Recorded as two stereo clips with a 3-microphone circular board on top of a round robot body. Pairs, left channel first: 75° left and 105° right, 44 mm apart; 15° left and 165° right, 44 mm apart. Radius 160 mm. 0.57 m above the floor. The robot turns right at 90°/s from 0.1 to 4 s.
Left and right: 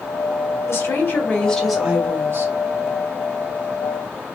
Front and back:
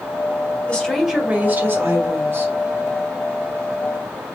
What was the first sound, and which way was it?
A woman speaking, 80° left.